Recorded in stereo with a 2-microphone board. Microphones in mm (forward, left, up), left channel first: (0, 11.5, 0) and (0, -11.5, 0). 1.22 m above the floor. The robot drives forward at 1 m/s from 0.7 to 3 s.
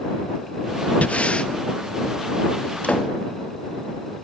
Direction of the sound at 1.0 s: 65° left (ahead or behind).